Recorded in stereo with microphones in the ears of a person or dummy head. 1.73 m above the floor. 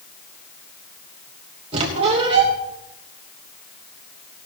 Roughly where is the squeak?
Right.